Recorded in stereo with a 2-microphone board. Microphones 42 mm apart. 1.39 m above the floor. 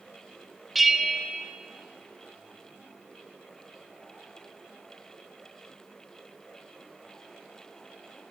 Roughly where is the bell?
Centre.